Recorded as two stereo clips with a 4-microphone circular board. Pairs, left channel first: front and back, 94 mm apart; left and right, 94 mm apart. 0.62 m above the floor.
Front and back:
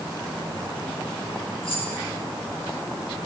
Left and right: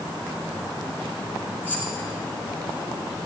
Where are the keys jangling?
20° left, 4.5 m.